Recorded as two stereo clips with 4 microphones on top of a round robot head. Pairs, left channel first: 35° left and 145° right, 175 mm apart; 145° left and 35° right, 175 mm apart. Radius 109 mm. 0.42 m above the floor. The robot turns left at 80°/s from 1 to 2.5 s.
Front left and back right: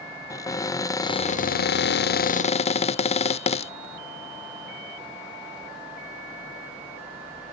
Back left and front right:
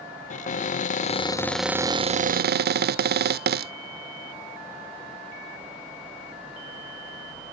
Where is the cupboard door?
105° left; by 3.7 s 15° right.